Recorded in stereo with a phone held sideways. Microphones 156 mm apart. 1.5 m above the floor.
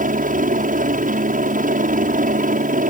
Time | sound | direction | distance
0.0 | a helicopter | 60° right (ahead or behind) | ?